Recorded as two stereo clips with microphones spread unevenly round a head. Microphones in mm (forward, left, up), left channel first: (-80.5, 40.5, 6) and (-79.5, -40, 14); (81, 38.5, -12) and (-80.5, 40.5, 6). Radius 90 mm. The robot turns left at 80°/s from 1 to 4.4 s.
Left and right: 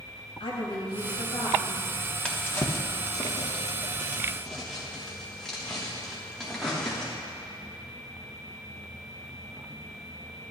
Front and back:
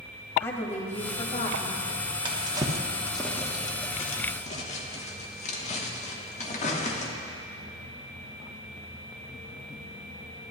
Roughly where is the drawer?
Behind.